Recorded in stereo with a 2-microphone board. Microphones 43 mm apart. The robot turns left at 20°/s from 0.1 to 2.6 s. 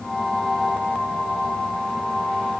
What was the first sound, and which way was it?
Only background noise.